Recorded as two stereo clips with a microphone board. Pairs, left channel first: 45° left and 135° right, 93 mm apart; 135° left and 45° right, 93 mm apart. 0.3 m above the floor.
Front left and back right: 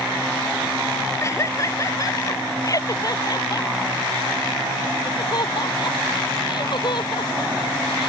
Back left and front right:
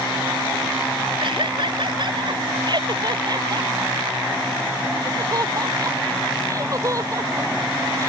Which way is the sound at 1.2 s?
15° right.